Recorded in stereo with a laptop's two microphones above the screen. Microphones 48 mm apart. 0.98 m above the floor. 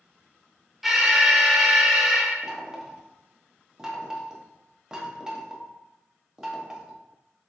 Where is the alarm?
5° right (ahead or behind), 0.6 m.